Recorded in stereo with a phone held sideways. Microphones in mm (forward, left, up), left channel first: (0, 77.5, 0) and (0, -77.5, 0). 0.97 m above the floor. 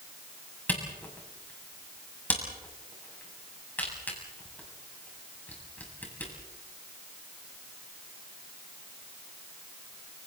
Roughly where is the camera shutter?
Centre.